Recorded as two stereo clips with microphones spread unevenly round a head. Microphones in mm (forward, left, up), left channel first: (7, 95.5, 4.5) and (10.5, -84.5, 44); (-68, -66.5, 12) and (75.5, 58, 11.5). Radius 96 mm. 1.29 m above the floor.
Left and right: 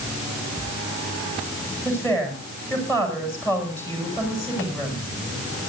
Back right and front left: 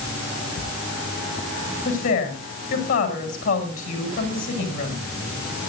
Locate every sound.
1.9 s a woman speaking: 170° left, 7.5 m